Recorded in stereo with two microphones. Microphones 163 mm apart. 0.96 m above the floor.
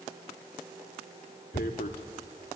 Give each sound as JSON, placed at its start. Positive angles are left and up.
{"t": 1.5, "sound": "tearing paper", "side_deg": 70, "distance_m": 1.8}